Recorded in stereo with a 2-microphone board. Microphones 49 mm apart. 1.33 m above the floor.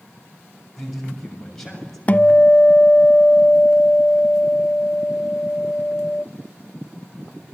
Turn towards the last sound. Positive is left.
turn(degrees=30)  # may be behind; listen again after turning